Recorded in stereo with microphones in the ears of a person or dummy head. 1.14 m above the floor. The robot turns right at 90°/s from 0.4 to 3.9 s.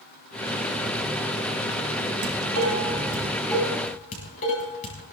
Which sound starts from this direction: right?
Dishes clattering, at 2.2 s.